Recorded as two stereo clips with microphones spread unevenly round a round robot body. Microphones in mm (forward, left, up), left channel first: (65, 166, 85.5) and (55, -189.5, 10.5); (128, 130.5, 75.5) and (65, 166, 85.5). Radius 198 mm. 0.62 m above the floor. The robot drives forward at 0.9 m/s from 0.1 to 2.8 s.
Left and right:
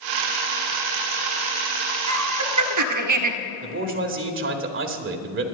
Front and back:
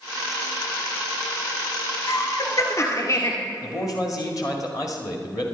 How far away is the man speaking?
About 1.8 m.